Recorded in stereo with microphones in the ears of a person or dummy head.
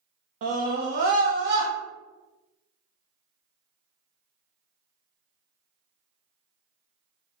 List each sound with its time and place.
0.4 s a scream: 40° right (ahead or behind), 0.6 m; by 1.7 s 60° right (ahead or behind), 1.2 m